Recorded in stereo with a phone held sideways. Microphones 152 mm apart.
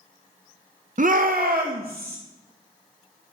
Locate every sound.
1.0 s a shout: 55° right (ahead or behind), 0.6 m; by 2.2 s 85° right, 1.3 m